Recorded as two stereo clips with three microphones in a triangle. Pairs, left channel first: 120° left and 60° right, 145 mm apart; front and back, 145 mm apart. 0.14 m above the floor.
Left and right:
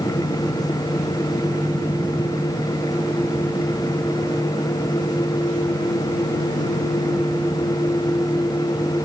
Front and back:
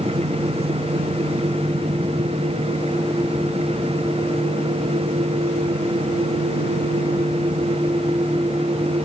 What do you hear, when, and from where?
Only background noise.